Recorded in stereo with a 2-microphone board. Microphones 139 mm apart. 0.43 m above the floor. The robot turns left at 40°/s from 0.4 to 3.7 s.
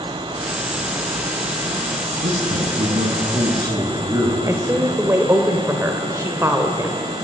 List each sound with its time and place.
2.2 s a man speaking: 90° right, 7 m; by 4.4 s 150° right, 7 m
4.5 s a woman speaking: 20° right (ahead or behind), 1.9 m